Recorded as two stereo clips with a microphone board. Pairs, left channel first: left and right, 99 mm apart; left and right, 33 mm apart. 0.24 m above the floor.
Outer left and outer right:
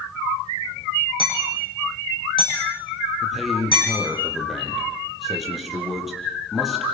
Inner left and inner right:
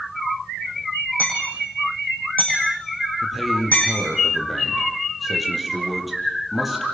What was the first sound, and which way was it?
Hammering, 60° left (ahead or behind).